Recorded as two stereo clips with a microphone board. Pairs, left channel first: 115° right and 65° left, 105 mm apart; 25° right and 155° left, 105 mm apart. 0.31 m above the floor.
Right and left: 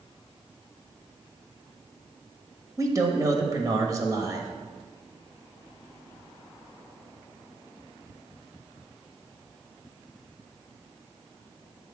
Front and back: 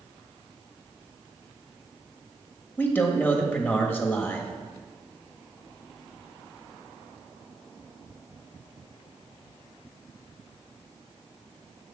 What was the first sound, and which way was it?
A man speaking, 40° left.